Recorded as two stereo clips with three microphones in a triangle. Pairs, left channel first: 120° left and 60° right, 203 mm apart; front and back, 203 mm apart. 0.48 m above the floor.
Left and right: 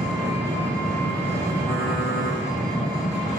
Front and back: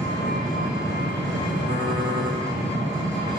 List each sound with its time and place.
0.0 s an engine running: 40° right, 1.8 m
1.6 s typing on a keyboard: 100° right, 1.3 m